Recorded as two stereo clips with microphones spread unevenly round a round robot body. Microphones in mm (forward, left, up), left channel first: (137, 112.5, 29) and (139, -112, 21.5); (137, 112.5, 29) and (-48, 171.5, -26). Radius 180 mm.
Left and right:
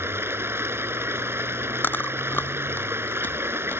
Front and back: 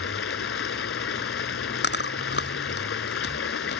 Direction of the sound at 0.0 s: 10° right.